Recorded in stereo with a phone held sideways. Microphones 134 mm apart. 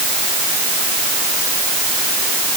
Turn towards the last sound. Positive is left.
No sound to turn to.